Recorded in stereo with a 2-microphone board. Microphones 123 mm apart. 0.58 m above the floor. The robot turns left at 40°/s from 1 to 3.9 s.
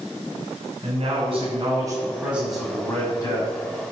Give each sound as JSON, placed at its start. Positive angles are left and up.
{"t": 0.8, "sound": "a man speaking", "azimuth_deg": -120, "distance_m": 4.0}